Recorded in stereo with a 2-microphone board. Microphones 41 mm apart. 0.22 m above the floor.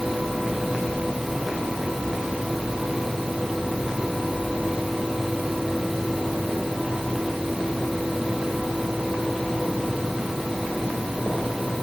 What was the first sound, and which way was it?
Only background noise.